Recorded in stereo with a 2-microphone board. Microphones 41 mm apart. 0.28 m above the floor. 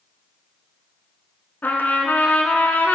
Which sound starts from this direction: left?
A trumpet, at 1.6 s.